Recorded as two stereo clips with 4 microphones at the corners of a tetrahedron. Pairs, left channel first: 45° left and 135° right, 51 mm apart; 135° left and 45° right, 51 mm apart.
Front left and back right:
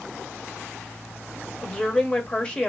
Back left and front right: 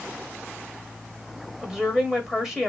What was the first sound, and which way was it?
A woman speaking, 15° left.